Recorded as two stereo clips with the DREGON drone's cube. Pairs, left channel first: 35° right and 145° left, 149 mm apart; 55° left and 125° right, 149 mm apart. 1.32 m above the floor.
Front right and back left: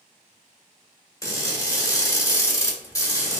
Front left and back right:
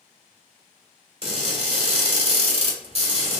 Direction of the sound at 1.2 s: 95° right.